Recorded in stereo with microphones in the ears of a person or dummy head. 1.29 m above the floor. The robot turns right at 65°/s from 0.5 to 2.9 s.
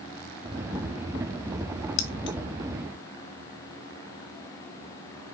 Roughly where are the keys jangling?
Left.